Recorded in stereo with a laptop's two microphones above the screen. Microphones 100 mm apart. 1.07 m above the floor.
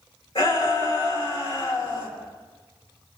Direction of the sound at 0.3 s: 65° left (ahead or behind).